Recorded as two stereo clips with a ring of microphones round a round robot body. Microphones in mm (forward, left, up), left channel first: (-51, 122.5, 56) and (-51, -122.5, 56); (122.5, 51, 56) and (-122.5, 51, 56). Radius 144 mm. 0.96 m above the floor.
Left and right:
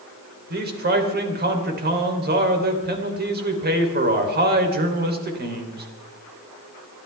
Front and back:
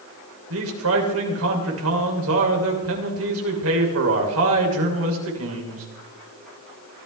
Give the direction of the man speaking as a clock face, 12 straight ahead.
5 o'clock.